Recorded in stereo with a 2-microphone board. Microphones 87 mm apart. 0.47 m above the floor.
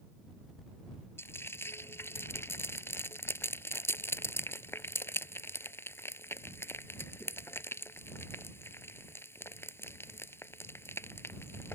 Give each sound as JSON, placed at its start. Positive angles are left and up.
{"t": 1.2, "sound": "frying", "side_deg": 30}